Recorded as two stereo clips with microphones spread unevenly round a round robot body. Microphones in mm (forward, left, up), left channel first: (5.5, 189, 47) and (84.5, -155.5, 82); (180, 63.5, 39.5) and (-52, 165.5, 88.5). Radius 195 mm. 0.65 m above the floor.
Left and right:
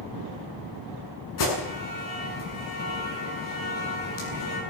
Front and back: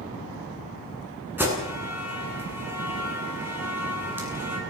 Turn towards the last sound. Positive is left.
turn(degrees=75)